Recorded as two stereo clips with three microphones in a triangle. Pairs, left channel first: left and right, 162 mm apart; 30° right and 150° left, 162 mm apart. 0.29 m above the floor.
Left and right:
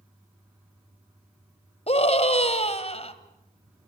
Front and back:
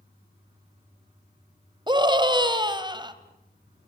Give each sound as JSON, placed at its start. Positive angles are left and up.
{"t": 1.9, "sound": "a scream", "azimuth_deg": 105, "distance_m": 1.9}